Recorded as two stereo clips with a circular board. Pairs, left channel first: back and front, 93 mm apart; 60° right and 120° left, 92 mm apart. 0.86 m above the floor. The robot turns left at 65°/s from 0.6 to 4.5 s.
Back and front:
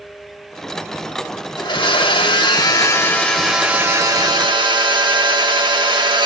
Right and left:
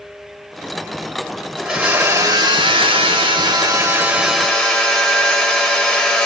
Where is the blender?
145° right, 1.2 m; by 6.3 s 25° left, 1.2 m.